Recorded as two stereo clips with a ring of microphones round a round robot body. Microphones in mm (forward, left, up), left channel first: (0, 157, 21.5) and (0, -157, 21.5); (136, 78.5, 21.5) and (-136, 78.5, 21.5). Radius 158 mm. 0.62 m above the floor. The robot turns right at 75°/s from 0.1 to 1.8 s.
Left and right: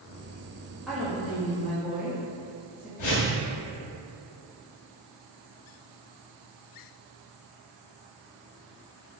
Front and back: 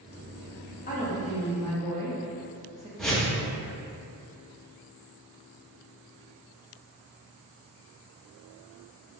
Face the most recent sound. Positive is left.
turn(degrees=90)